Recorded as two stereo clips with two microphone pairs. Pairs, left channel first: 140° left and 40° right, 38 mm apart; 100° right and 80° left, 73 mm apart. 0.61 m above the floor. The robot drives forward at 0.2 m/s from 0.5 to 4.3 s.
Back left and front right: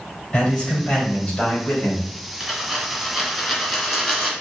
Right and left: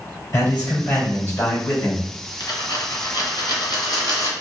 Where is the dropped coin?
125° right, 1.8 m; by 4.3 s 135° right, 2 m.